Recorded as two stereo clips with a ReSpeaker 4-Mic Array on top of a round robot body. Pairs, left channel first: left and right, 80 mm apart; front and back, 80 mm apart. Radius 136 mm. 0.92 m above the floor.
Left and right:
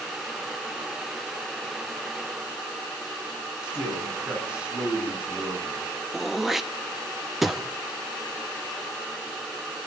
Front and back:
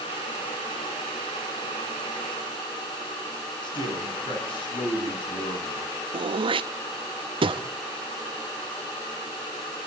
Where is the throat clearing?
175° right, 1.0 m.